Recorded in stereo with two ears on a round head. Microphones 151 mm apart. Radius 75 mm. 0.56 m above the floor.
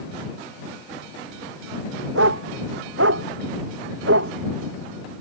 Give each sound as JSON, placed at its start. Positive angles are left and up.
{"t": 2.1, "sound": "a dog barking", "side_deg": -90}